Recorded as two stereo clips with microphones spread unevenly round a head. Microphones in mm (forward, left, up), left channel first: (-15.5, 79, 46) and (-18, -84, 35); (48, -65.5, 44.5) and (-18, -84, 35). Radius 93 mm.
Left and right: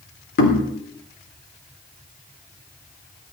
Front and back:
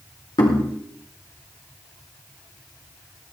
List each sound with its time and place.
0.4 s knocking: 60° left, 3 m